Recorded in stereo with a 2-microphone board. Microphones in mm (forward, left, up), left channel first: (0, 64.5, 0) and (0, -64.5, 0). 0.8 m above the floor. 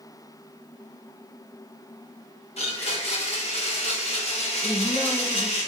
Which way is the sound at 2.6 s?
50° left (ahead or behind).